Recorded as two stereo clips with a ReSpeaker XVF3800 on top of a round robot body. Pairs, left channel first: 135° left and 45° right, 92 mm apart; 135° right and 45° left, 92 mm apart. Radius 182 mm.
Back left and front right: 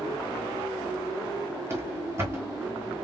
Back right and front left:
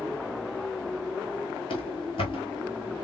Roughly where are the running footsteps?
Right.